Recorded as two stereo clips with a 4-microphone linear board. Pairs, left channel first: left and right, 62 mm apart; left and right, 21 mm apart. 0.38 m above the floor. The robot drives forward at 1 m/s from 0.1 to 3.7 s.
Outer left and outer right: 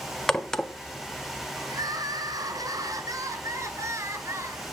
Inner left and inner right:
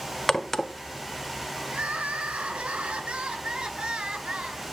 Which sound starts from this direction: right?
Crying, at 1.7 s.